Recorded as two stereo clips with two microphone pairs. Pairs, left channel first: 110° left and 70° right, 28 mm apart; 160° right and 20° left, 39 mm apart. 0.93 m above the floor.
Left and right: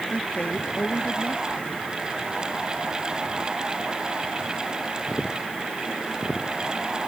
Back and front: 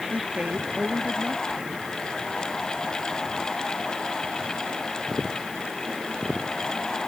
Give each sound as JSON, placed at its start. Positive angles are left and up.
{"t": 0.1, "sound": "a woman speaking", "azimuth_deg": 75}